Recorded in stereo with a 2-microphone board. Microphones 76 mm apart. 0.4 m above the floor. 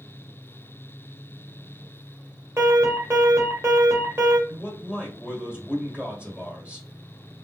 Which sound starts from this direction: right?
An alarm, at 2.6 s.